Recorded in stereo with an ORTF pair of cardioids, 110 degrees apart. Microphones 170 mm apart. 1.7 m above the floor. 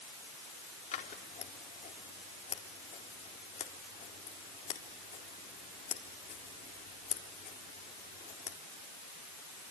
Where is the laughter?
No laughter in this recording.